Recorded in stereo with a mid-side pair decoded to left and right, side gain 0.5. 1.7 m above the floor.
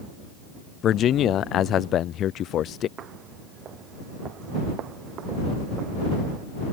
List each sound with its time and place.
0.8 s a man speaking: 60° left
3.0 s footsteps: 60° right